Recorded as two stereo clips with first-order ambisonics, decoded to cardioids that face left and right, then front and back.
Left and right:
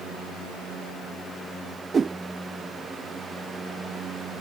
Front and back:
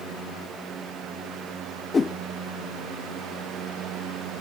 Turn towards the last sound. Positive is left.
turn(degrees=-50)